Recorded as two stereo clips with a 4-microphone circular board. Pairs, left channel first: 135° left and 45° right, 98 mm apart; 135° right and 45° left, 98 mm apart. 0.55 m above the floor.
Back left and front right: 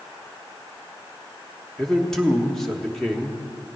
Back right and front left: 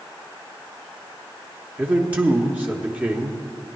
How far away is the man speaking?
About 1.1 m.